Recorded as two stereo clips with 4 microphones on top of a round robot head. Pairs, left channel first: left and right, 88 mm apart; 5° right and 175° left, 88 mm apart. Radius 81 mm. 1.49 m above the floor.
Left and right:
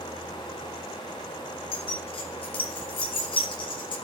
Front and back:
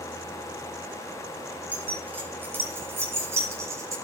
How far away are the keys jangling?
About 5.5 m.